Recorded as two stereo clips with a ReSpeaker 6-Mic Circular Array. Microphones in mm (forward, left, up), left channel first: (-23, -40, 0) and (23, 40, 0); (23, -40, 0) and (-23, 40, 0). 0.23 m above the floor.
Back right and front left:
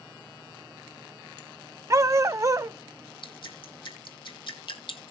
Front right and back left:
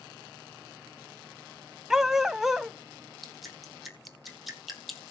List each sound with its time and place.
1.9 s a dog barking: 35° left, 0.5 m
3.2 s dripping: 150° right, 2 m